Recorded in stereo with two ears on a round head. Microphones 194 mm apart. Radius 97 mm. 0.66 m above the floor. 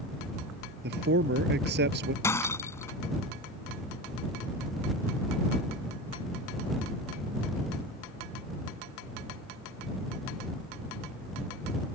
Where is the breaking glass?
10° left (ahead or behind).